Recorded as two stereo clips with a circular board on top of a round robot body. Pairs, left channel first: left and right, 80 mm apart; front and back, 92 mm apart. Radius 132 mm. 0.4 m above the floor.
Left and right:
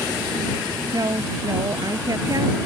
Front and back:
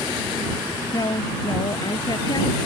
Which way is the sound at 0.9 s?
45° right.